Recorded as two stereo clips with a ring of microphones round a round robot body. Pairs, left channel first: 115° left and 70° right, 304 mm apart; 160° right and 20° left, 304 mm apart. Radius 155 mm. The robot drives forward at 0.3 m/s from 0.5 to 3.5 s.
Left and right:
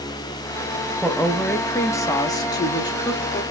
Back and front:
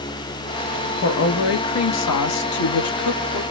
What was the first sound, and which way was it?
A woman speaking, 160° right.